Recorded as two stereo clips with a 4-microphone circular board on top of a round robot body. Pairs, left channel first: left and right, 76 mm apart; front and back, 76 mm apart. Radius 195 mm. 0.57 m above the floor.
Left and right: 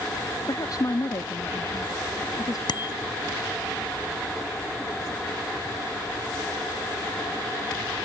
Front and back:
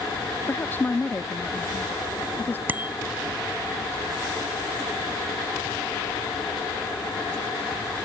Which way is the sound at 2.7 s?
115° left.